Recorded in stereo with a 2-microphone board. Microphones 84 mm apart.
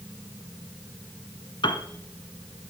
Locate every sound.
1.6 s a piano: 70° left (ahead or behind), 1.6 m